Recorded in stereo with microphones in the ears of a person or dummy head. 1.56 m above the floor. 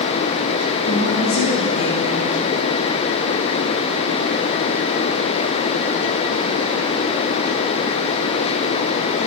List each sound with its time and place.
0.8 s a woman speaking: 60° left (ahead or behind), 2.5 m